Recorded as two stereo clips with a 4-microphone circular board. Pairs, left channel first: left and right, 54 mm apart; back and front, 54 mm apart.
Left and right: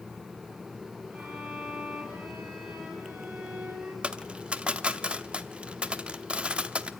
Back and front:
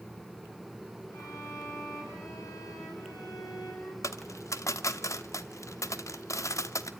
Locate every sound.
1.1 s a violin: 155° right, 6 m
4.0 s a dropped coin: 160° right, 0.7 m